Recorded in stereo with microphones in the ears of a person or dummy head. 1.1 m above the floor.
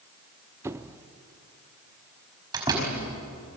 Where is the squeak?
10° right (ahead or behind), 0.7 m.